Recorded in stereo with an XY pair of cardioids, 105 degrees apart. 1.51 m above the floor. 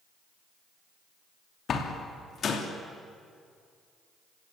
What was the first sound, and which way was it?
A door slam, 50° left.